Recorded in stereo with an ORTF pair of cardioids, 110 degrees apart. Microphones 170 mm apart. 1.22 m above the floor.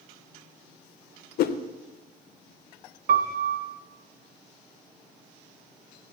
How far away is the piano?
About 1.3 m.